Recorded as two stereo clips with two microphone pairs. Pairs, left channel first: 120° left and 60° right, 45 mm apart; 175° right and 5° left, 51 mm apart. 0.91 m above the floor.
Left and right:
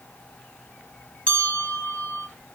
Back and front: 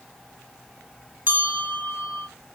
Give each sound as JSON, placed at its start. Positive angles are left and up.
{"t": 1.3, "sound": "a bell", "azimuth_deg": 55, "distance_m": 2.5}